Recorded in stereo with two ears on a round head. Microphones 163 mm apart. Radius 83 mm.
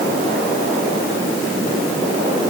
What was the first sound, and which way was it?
Only background noise.